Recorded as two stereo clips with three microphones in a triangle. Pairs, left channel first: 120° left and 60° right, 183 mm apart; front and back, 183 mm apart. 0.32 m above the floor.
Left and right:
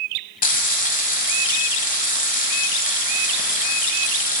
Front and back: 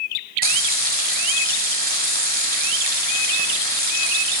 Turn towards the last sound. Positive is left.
turn(degrees=155)